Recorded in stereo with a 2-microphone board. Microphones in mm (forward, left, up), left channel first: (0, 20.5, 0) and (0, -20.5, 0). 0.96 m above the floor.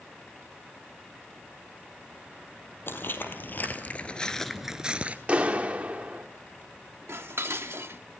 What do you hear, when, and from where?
2.9 s footsteps: 60° left (ahead or behind), 2.0 m; by 5.2 s 35° right (ahead or behind), 1.1 m
5.3 s a clap: 30° right (ahead or behind), 1.7 m
7.1 s dishes clattering: 80° right, 1.1 m